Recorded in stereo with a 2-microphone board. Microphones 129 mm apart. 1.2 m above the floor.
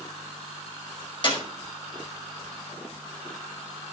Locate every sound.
1.2 s a clap: 40° left (ahead or behind), 5.5 m